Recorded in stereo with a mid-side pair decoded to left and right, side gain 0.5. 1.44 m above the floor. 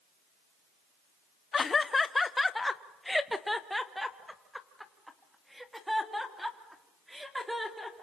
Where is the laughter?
35° left, 0.8 m; by 8.0 s 10° right, 4.5 m.